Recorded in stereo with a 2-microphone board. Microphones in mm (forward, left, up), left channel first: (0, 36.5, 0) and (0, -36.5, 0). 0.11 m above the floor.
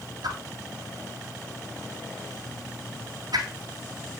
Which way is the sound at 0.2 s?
70° right (ahead or behind).